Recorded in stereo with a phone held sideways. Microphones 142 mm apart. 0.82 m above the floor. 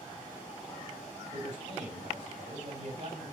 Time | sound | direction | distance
1.3 | a man speaking | 50° right (ahead or behind) | 4 m